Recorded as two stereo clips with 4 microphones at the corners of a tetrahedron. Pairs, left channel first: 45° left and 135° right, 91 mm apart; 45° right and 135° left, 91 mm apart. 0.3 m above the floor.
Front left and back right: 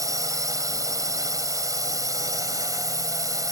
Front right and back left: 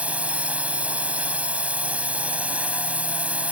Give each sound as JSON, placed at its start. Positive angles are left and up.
{"t": 0.0, "sound": "a drone", "azimuth_deg": -160}